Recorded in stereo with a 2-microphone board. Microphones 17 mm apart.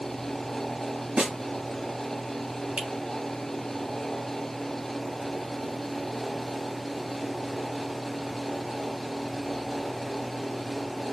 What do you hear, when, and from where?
1.2 s a snare drum: 80° right, 3 m
2.8 s a finger snap: 65° right (ahead or behind), 2.5 m